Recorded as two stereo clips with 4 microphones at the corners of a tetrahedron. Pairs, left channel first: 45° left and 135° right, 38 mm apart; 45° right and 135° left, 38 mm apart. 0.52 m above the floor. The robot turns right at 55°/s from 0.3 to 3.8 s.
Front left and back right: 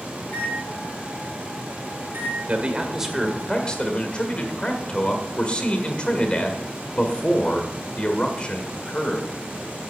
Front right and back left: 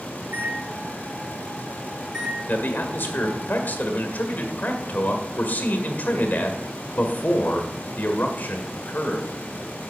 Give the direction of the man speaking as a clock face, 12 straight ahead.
3 o'clock.